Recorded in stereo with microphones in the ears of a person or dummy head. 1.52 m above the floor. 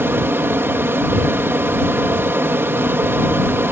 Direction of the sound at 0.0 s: 10° right (ahead or behind).